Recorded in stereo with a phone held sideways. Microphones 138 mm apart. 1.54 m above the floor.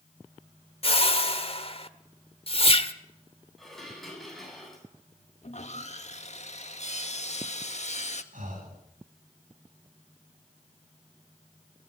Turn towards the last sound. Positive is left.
turn(degrees=-75)  # may be behind; listen again after turning